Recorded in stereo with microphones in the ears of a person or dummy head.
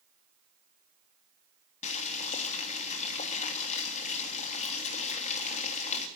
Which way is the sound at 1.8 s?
35° left (ahead or behind).